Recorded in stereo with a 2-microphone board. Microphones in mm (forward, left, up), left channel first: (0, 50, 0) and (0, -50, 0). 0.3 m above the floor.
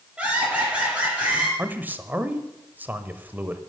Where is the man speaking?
20° right (ahead or behind), 1.0 m.